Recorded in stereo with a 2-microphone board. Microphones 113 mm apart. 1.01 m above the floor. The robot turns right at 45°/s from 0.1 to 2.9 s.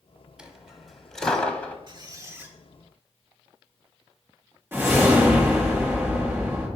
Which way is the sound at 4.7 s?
20° right (ahead or behind).